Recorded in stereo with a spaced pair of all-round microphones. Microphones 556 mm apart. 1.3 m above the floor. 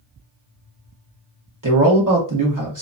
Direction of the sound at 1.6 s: 30° right (ahead or behind).